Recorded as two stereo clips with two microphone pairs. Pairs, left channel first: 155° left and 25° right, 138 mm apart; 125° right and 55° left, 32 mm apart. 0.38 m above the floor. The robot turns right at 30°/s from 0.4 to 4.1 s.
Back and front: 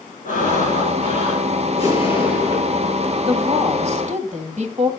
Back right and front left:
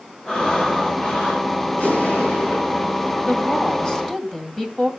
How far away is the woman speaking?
About 2.5 m.